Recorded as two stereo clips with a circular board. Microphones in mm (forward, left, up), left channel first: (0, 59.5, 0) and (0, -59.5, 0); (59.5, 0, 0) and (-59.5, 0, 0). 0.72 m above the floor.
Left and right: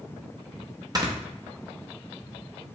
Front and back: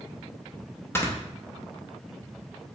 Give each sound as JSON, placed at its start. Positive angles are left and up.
{"t": 0.9, "sound": "snoring", "azimuth_deg": -55, "distance_m": 0.7}